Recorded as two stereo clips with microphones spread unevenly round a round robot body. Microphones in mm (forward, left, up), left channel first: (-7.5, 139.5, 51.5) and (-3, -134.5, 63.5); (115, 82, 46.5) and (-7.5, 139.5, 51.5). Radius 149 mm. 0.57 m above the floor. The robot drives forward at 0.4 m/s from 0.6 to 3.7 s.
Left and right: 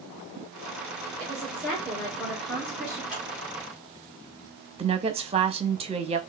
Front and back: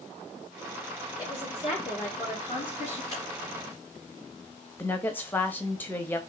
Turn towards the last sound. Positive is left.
turn(degrees=-65)